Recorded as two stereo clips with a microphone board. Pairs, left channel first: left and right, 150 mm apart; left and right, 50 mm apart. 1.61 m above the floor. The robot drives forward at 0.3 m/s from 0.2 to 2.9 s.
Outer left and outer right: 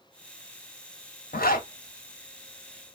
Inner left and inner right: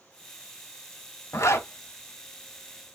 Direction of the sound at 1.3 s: 75° left (ahead or behind).